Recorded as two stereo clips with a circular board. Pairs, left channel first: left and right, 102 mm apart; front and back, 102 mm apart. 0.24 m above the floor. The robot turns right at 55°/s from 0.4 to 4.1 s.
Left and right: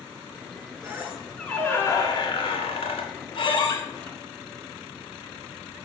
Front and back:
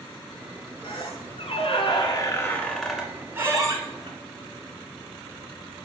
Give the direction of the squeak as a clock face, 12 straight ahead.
1 o'clock.